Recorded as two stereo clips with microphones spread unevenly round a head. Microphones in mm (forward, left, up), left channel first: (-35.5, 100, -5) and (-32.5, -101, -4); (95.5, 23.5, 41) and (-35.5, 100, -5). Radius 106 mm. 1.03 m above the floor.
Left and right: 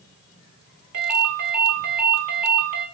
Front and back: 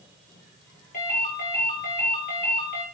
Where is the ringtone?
85° right, 4.5 m.